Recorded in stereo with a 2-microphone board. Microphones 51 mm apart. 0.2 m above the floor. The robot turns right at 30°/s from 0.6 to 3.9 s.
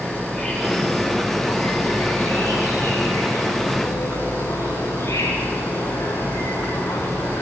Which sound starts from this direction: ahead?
An insect, at 0.0 s.